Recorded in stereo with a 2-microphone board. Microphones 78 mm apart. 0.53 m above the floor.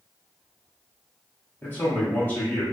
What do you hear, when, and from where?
1.6 s a man speaking: 25° left (ahead or behind), 1.0 m